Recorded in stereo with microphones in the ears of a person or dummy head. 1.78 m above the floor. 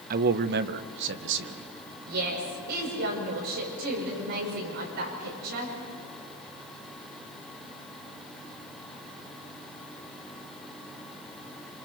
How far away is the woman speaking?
About 6.5 m.